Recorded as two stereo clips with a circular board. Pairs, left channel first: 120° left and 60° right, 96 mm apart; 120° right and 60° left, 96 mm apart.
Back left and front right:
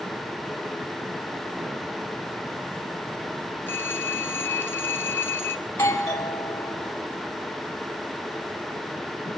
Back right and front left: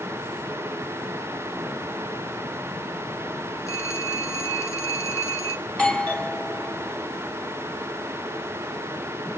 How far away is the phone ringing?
About 2 m.